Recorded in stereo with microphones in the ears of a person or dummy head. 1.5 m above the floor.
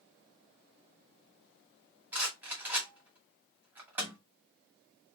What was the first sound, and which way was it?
A rattle, 5° right (ahead or behind).